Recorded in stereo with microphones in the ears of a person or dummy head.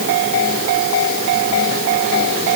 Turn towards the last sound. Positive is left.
No sound to turn to.